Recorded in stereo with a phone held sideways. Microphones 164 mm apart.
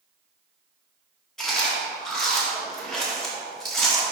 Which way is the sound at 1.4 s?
5° left (ahead or behind).